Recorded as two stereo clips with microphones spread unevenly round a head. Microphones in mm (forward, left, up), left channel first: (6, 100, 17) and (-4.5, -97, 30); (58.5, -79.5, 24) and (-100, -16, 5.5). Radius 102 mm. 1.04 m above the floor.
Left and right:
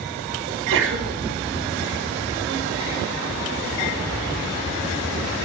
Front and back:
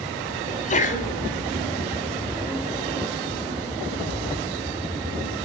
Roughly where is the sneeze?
Ahead right.